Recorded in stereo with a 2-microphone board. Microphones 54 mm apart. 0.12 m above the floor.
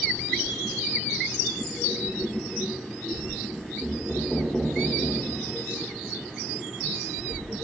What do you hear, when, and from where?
3.8 s knocking: 5° right (ahead or behind), 6 m